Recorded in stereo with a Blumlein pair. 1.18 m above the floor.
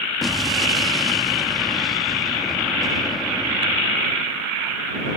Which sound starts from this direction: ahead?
An explosion, at 0.2 s.